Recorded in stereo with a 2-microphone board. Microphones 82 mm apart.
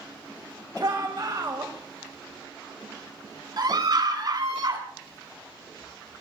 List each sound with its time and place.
0.8 s a shout: 50° right (ahead or behind), 1.9 m
3.6 s a scream: 55° right (ahead or behind), 4 m